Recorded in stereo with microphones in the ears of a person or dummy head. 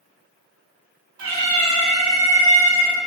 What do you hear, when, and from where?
1.2 s a cat meowing: 55° right (ahead or behind), 1.8 m